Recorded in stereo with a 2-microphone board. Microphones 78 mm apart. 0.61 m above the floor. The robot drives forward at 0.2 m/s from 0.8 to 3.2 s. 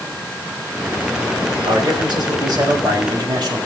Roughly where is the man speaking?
Right.